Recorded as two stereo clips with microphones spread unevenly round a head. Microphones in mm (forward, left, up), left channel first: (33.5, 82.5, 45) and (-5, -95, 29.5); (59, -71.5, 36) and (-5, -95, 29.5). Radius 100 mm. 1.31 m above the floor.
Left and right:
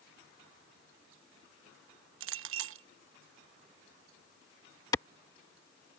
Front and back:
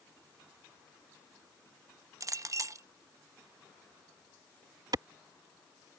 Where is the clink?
125° right.